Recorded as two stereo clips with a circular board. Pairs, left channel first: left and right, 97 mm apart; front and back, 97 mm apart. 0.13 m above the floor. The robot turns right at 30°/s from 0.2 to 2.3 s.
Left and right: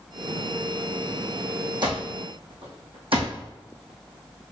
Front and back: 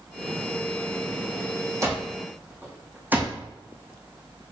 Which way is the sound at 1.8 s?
125° right.